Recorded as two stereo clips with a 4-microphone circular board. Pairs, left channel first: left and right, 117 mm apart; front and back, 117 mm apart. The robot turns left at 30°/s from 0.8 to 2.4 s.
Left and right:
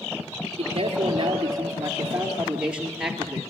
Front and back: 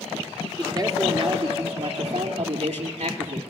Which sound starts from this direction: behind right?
A man speaking, at 0.6 s.